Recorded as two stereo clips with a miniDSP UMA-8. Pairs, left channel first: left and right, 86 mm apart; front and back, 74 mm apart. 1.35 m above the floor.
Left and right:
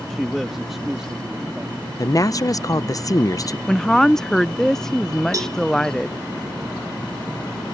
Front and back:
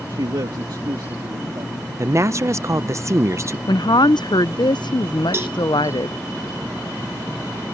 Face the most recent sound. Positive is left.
turn(degrees=-130)